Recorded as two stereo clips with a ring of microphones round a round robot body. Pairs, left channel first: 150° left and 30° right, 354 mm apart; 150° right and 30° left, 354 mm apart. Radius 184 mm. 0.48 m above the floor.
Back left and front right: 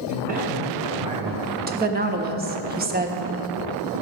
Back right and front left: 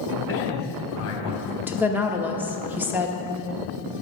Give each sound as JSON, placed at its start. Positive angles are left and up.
{"t": 0.1, "sound": "a man speaking", "azimuth_deg": -95, "distance_m": 3.0}
{"t": 1.7, "sound": "a woman speaking", "azimuth_deg": -50, "distance_m": 0.9}